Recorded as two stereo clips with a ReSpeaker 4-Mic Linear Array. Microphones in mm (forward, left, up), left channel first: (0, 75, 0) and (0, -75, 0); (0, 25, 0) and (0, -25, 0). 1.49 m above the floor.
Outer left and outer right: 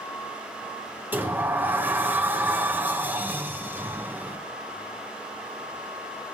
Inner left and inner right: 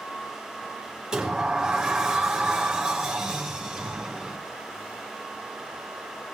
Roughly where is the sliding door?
Centre.